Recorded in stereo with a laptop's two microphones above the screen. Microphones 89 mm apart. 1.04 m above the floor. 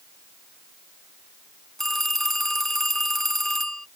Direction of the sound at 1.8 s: 5° left (ahead or behind).